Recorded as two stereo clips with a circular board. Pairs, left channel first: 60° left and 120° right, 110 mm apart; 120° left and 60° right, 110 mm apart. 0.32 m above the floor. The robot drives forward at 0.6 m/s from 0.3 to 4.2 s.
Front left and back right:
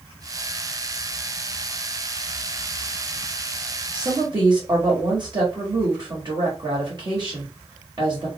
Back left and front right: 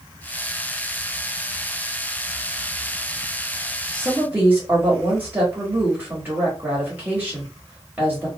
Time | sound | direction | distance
3.9 | a woman speaking | 120° right | 1.3 m